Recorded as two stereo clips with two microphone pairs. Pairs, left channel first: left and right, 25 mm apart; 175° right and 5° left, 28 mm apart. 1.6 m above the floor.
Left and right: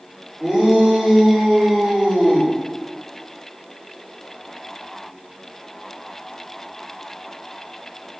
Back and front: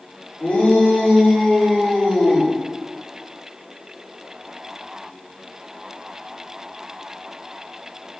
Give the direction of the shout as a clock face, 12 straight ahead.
5 o'clock.